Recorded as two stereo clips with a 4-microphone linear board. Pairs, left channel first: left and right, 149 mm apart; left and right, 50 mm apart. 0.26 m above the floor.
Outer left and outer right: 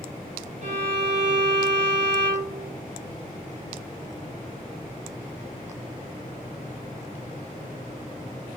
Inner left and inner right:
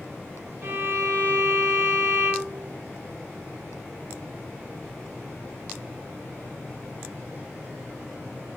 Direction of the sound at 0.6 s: 50° right (ahead or behind).